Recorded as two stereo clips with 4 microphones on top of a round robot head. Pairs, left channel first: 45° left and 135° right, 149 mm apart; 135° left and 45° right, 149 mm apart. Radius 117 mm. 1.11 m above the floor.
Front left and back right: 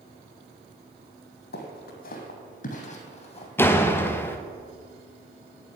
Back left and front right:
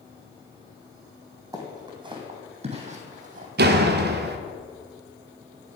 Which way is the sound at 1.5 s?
25° left.